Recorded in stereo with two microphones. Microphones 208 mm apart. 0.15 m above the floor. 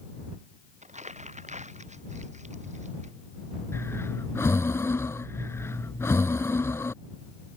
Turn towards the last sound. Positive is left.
turn(degrees=15)  # may be behind; listen again after turning